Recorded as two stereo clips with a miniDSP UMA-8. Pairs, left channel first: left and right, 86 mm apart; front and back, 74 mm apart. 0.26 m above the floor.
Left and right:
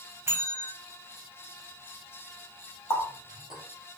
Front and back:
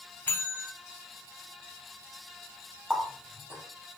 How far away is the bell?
About 0.5 m.